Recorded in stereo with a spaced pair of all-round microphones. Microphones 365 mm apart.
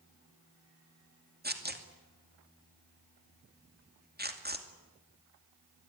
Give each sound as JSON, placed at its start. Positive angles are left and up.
{"t": 1.4, "sound": "tearing paper", "side_deg": -25, "distance_m": 2.5}